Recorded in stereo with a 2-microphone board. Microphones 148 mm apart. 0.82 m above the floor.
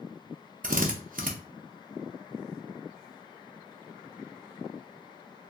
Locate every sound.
0.6 s a drill: 60° right (ahead or behind), 0.5 m